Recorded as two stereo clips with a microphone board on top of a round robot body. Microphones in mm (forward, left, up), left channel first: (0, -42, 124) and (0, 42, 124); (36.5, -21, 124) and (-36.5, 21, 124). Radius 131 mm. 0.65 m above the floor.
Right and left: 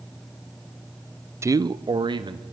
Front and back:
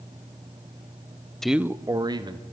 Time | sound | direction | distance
1.4 | a man speaking | 50° left | 0.6 m